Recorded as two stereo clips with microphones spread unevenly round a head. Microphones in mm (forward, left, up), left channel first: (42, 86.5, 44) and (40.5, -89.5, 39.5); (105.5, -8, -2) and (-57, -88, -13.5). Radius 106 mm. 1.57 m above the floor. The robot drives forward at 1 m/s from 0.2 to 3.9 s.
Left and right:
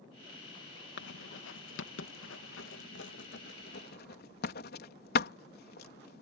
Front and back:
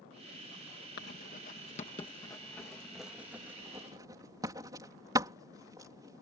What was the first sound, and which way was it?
Writing, 70° left.